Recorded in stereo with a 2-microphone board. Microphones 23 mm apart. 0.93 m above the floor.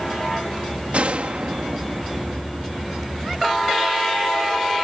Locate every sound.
0.9 s a gunshot: 55° right (ahead or behind)